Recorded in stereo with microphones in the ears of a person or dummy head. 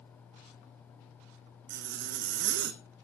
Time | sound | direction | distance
1.7 | a zipper | 60° right (ahead or behind) | 1.1 m